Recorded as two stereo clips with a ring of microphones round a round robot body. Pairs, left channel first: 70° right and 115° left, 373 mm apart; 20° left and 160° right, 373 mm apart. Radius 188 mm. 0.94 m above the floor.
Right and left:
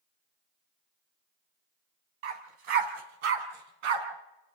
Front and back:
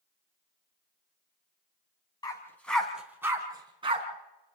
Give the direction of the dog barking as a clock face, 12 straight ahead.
9 o'clock.